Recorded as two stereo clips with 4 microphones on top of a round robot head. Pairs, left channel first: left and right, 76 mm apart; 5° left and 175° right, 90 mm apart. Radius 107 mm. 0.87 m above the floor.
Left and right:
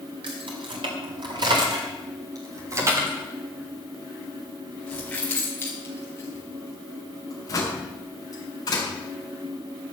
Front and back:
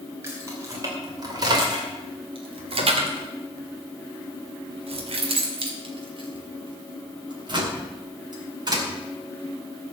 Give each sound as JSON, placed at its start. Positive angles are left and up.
{"t": 0.2, "sound": "keys jangling", "azimuth_deg": -110, "distance_m": 2.5}